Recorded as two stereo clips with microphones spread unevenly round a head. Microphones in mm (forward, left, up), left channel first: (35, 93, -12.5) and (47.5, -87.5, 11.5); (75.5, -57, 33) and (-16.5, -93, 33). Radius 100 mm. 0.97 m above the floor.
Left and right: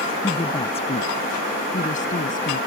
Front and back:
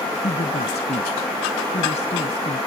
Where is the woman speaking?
30° left; by 2.6 s 50° left.